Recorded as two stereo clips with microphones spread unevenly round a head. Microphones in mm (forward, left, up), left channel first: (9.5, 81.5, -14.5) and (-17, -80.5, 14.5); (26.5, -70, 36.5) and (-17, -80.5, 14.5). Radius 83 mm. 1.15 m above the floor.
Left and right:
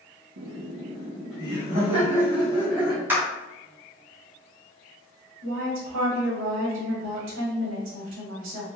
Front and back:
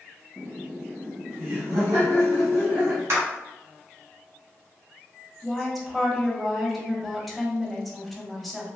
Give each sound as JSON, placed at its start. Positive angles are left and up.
{"t": 0.4, "sound": "laughter", "azimuth_deg": -120, "distance_m": 0.5}
{"t": 3.1, "sound": "a clap", "azimuth_deg": 180, "distance_m": 0.9}
{"t": 5.4, "sound": "a woman speaking", "azimuth_deg": -85, "distance_m": 1.2}